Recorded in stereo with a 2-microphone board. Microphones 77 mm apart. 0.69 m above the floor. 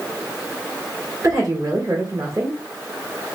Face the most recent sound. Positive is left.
turn(degrees=-50)  # may be behind; listen again after turning